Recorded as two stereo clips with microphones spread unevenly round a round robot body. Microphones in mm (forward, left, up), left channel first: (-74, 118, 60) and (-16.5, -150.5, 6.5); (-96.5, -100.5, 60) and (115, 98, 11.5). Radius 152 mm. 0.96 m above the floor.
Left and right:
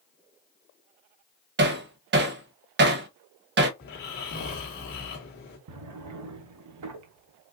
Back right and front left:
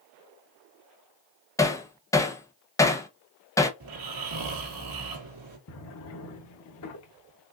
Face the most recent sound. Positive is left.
turn(degrees=-110)